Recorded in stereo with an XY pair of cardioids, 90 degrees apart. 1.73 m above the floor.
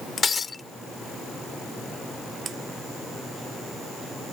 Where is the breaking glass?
40° left.